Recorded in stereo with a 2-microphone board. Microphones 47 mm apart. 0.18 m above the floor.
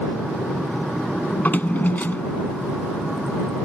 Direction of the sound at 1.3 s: 40° left (ahead or behind).